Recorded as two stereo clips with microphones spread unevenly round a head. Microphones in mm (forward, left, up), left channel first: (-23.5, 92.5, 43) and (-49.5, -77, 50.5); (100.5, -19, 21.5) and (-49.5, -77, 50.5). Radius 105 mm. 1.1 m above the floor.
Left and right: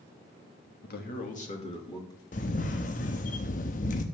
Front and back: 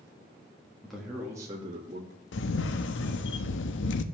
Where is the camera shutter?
30° left, 0.8 m.